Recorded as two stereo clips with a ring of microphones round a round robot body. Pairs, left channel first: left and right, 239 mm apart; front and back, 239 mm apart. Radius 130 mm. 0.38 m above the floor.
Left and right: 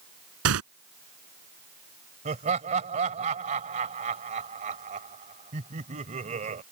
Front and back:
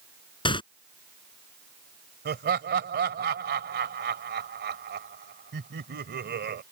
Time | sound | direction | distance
0.5 | tearing paper | 70° right | ?
2.2 | laughter | 145° right | ?